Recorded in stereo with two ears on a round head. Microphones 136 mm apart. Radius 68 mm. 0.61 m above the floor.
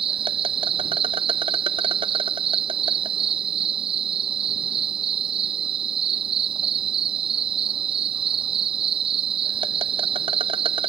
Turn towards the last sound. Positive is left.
turn(degrees=-35)  # may be behind; listen again after turning